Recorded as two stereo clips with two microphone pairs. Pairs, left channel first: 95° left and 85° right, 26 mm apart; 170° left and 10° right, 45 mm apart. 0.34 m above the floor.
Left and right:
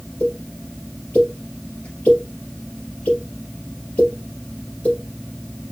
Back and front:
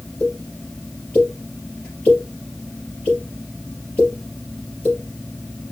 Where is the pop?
110° left, 3.5 m.